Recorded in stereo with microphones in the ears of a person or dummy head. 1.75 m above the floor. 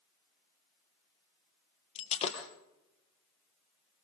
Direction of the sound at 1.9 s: 40° left (ahead or behind).